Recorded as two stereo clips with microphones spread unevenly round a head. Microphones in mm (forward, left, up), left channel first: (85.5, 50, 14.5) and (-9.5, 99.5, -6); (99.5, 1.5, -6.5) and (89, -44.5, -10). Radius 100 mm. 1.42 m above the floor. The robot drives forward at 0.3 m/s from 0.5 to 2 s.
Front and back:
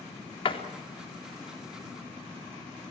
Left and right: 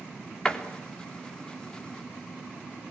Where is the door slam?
5° left, 3.5 m.